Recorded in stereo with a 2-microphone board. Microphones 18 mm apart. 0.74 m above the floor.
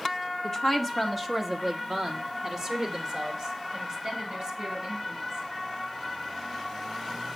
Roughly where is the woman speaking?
Left.